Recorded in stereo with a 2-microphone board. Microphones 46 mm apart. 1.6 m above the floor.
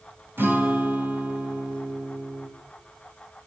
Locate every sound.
0.4 s a guitar: 55° right (ahead or behind), 2.5 m